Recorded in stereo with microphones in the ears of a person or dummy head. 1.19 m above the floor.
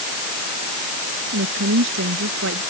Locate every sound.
1.3 s a woman speaking: 70° right (ahead or behind)